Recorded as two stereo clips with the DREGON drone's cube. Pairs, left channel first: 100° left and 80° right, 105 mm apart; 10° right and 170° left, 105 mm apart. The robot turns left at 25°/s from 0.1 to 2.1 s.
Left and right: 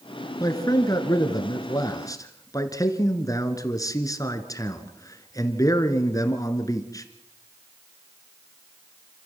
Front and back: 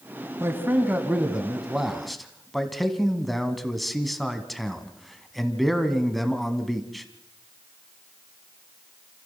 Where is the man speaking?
120° left, 1.9 m; by 7.0 s 80° left, 1.9 m.